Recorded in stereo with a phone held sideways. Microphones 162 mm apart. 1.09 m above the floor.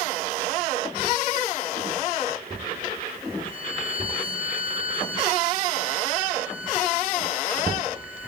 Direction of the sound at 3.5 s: 55° left (ahead or behind).